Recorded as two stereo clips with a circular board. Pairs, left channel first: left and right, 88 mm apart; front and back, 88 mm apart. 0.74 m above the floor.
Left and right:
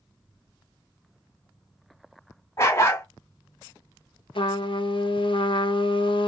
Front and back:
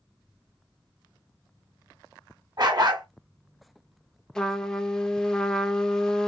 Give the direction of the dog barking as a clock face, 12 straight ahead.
7 o'clock.